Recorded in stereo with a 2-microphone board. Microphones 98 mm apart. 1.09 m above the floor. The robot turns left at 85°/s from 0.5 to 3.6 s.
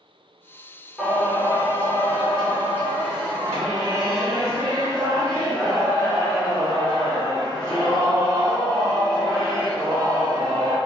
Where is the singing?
175° right, 1.5 m; by 10.8 s 40° right, 1.5 m.